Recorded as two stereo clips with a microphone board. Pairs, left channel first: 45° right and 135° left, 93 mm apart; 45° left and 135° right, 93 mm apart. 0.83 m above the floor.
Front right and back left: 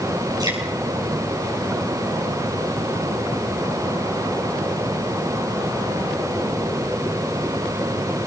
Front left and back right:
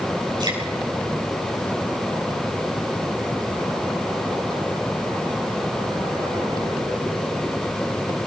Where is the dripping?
175° right, 8 m.